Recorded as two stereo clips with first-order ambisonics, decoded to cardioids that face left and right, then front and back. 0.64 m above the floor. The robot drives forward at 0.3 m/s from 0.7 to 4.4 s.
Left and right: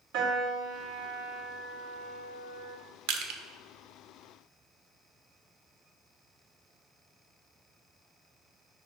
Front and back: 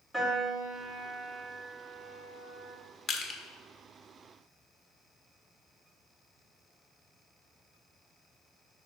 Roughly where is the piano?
Right.